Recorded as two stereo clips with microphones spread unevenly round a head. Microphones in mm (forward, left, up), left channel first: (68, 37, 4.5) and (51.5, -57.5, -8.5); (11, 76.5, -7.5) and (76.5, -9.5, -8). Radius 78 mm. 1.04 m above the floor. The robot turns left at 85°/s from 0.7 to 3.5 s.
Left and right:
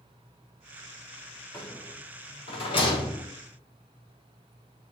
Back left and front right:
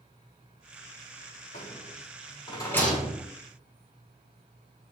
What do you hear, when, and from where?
1.5 s a rattle: 160° left, 7 m; by 3.3 s 15° left, 7 m